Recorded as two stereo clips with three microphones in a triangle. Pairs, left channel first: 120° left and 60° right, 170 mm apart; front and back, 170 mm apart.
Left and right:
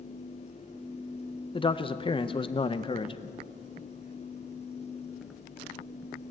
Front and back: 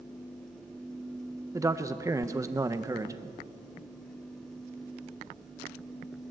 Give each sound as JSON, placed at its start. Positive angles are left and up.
{"t": 1.5, "sound": "a man speaking", "azimuth_deg": 130, "distance_m": 0.5}